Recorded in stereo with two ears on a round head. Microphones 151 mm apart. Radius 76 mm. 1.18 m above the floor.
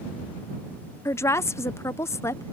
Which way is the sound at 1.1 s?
15° left (ahead or behind).